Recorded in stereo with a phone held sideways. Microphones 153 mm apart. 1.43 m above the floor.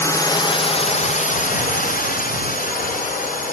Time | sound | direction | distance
0.0 | a drone | 20° left (ahead or behind) | ?